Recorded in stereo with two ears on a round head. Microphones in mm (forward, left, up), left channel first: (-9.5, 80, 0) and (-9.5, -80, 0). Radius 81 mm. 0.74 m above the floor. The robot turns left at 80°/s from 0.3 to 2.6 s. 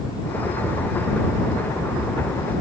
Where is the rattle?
I don't hear a rattle.